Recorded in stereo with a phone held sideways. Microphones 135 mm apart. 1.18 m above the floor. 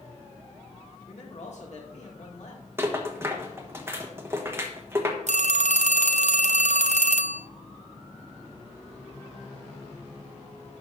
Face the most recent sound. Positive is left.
turn(degrees=-65)  # may be behind; listen again after turning